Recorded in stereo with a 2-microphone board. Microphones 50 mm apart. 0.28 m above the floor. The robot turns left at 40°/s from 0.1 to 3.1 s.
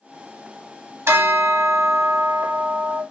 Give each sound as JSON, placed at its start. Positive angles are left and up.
{"t": 1.1, "sound": "a bell", "azimuth_deg": -70, "distance_m": 0.7}